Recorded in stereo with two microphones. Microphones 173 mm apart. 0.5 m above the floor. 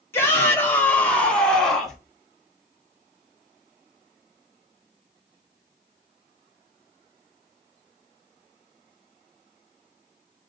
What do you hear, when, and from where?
0.1 s a shout: 15° left (ahead or behind), 0.9 m; by 2.0 s centre (ahead or behind), 1.3 m